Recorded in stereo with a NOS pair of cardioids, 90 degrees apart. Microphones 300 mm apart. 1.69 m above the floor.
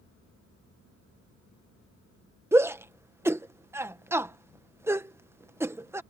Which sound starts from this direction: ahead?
A shout, at 2.5 s.